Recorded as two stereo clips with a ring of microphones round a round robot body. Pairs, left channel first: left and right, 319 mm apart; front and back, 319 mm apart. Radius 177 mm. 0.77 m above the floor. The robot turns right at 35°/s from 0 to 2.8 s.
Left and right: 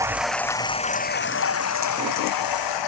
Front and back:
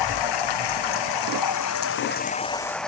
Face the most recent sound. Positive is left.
turn(degrees=90)